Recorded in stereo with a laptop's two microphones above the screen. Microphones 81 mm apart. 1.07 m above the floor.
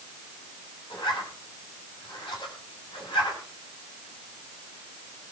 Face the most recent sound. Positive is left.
turn(degrees=80)